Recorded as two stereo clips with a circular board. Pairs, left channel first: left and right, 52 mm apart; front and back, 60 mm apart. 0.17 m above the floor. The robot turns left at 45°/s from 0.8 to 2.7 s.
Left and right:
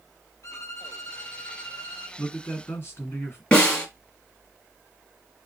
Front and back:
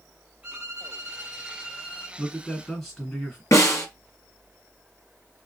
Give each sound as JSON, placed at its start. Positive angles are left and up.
{"t": 0.4, "sound": "a violin", "azimuth_deg": 105, "distance_m": 1.8}
{"t": 2.2, "sound": "a man speaking", "azimuth_deg": 95, "distance_m": 2.0}
{"t": 3.5, "sound": "a snare drum", "azimuth_deg": 25, "distance_m": 1.9}